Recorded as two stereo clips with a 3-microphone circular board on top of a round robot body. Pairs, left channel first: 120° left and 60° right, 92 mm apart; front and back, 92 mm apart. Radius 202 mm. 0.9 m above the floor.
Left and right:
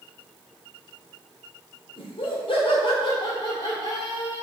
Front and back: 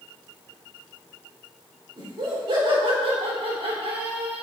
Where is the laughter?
145° left, 3.5 m; by 4.4 s straight behind, 3 m.